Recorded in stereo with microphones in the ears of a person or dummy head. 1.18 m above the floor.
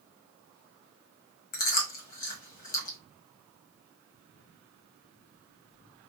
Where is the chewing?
45° left (ahead or behind), 1.3 m.